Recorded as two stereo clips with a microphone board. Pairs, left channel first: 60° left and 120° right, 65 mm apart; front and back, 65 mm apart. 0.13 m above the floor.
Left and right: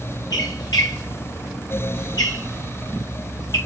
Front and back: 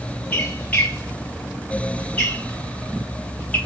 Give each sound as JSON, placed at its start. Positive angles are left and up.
{"t": 0.3, "sound": "a squeak", "azimuth_deg": 70, "distance_m": 4.0}